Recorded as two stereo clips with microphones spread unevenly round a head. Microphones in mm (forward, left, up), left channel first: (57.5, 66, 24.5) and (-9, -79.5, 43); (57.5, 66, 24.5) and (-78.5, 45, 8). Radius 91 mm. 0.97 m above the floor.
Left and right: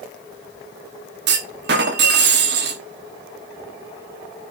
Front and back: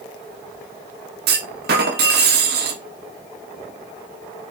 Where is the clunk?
145° right, 1.1 m.